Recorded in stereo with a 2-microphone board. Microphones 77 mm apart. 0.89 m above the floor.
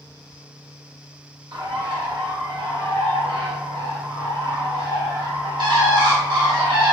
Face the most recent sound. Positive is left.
turn(degrees=-80)